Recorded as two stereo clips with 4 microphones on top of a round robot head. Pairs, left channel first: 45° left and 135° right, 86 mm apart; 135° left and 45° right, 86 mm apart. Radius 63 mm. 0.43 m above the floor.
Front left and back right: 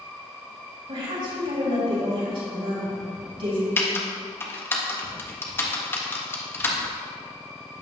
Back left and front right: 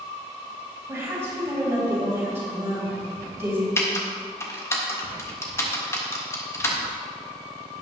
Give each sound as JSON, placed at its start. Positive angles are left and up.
{"t": 0.9, "sound": "a woman speaking", "azimuth_deg": -110, "distance_m": 3.5}
{"t": 3.8, "sound": "typing on a keyboard", "azimuth_deg": 95, "distance_m": 1.7}